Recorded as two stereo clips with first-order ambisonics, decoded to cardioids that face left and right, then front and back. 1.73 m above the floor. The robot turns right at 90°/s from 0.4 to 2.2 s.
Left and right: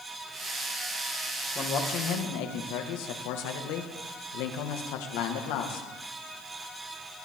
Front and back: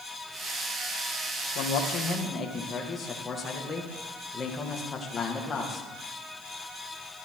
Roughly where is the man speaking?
Ahead.